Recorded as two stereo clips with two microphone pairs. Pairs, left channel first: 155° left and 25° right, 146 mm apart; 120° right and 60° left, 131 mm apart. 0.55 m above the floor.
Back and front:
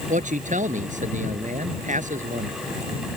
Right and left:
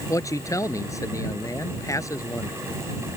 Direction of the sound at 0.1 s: 55° right.